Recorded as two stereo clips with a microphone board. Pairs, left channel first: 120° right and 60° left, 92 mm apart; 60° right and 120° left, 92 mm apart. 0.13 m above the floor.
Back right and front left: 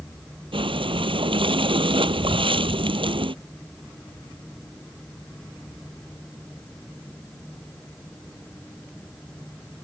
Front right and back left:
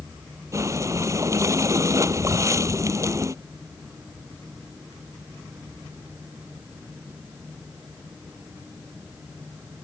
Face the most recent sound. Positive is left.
turn(degrees=65)